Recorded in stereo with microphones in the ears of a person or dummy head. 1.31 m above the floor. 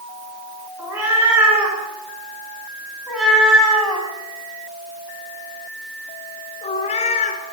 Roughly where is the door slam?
I don't hear a door slam.